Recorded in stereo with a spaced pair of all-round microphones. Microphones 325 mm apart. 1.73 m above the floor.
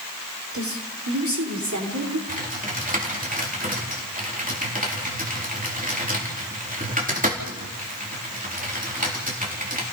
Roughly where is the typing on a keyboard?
Right.